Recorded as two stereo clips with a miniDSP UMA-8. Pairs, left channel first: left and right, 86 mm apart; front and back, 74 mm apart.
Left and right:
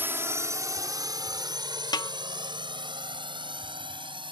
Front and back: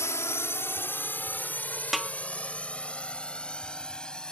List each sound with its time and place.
0.0 s a drone: 35° right; by 4.3 s 80° right
1.9 s a snare drum: 90° left